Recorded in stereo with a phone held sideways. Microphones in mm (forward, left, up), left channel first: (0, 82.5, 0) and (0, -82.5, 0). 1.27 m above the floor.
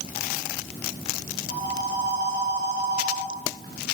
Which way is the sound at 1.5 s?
65° right (ahead or behind).